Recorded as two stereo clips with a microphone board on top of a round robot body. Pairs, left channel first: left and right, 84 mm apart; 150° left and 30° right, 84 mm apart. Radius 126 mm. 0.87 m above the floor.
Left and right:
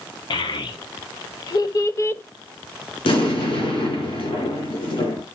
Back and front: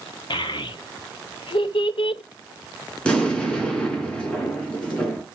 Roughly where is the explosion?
Left.